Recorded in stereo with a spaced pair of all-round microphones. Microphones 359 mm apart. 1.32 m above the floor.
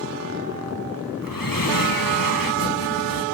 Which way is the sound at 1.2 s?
65° left (ahead or behind).